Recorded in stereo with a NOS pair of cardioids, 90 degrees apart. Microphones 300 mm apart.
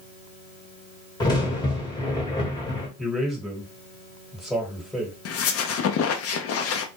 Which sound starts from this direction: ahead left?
A squeak, at 5.2 s.